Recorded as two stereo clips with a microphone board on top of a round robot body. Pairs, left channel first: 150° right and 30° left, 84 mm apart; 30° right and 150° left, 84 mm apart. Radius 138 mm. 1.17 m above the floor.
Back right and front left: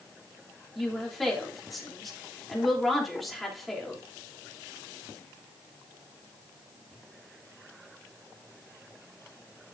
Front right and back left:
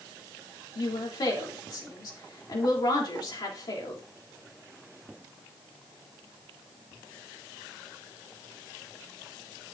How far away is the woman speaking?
About 3.5 m.